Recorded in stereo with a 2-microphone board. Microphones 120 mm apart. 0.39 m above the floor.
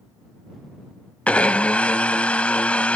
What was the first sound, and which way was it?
A blender, 10° left (ahead or behind).